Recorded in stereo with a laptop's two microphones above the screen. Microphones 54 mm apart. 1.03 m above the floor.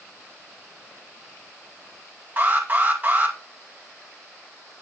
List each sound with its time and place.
2.4 s an alarm: 35° right (ahead or behind), 2.5 m